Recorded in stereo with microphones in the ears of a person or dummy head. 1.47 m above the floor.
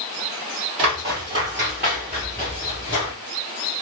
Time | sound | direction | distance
0.8 | footsteps | 20° right (ahead or behind) | 1.6 m